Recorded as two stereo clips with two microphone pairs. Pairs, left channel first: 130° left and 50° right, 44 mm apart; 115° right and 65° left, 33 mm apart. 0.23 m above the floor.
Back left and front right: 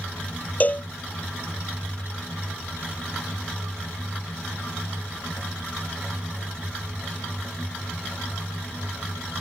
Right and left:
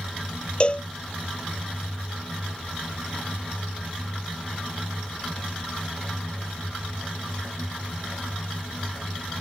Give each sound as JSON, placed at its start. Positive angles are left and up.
{"t": 0.6, "sound": "a cowbell", "azimuth_deg": -175}